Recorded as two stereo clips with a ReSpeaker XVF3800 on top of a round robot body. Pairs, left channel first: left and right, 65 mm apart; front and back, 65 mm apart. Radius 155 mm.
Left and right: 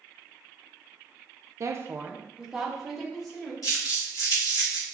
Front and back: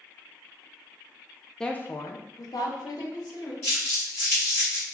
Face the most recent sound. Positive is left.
turn(degrees=55)